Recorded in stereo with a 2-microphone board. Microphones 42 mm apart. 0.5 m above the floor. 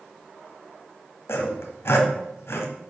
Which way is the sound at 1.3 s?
75° left (ahead or behind).